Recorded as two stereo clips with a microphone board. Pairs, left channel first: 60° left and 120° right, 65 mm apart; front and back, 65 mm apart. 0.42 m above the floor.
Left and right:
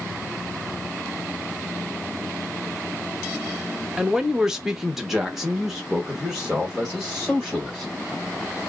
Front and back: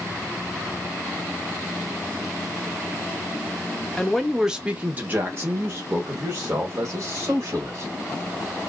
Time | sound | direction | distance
4.0 | a man speaking | 65° right | 0.7 m